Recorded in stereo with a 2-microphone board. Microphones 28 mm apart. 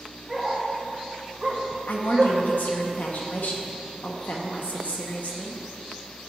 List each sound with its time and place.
0.3 s a dog barking: 10° right (ahead or behind), 2.5 m; by 2.4 s 35° right (ahead or behind), 1.4 m
1.9 s a woman speaking: 80° left, 1.5 m